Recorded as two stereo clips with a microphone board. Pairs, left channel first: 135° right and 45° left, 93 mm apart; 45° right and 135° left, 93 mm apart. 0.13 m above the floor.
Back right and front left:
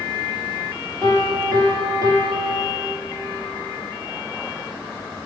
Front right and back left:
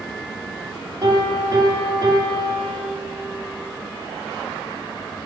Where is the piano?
85° left, 3 m.